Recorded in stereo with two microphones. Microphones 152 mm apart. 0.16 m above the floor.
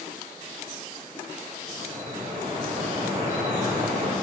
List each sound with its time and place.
1.7 s dripping: 50° right (ahead or behind), 4 m